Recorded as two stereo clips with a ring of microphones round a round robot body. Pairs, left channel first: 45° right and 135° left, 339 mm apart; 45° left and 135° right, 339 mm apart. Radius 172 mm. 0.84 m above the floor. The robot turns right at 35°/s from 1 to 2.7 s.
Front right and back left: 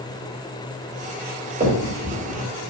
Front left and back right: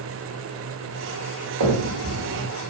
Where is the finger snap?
155° right, 2 m; by 2.5 s 125° right, 2 m.